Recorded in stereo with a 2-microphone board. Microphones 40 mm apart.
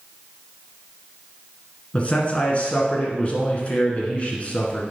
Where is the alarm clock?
No alarm clock in this recording.